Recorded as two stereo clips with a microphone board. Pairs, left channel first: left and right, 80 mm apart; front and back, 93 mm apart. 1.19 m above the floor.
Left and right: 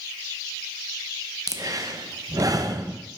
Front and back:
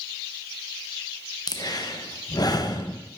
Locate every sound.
1.5 s breathing: 45° right, 0.6 m